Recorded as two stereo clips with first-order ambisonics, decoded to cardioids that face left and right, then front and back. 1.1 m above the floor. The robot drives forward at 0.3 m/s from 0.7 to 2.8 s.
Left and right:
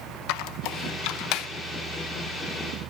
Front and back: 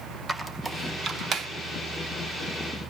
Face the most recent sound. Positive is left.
turn(degrees=145)